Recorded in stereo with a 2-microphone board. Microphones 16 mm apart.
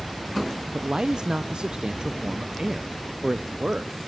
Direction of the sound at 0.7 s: 60° right (ahead or behind).